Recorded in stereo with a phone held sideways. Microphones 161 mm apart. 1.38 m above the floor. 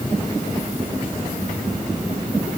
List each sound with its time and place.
Only background noise.